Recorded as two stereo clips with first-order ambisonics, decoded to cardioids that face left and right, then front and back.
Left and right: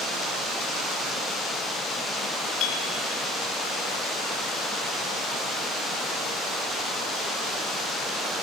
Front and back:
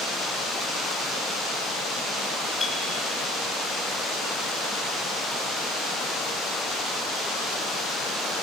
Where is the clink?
70° left, 1.6 m.